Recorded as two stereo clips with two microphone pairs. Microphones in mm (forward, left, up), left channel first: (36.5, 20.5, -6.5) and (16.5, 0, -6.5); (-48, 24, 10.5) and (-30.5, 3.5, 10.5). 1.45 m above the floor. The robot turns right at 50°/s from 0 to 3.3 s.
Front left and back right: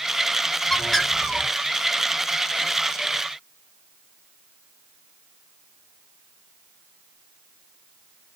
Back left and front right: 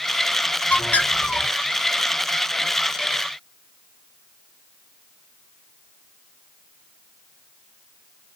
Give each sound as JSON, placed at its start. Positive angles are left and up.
{"t": 0.7, "sound": "a bird", "azimuth_deg": 125, "distance_m": 1.7}